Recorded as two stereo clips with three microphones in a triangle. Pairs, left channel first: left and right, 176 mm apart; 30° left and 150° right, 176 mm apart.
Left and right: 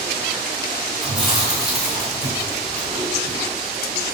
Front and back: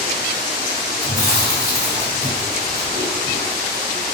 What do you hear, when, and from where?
1.0 s chewing: straight behind, 1.6 m